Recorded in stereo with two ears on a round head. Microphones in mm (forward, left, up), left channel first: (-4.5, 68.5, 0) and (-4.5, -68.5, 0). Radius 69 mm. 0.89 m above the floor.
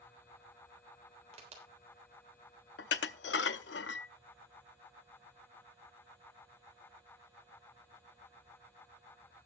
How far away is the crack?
About 3.5 m.